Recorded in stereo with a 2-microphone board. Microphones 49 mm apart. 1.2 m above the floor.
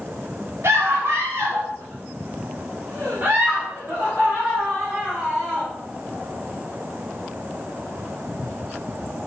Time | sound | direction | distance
0.6 | a scream | 70° right (ahead or behind) | 2.5 m